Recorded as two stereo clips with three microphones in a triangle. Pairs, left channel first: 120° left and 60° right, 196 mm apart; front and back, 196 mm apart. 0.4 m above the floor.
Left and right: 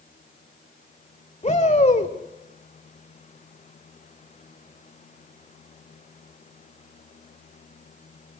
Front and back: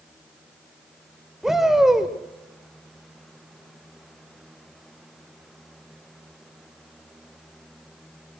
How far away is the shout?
About 1.6 m.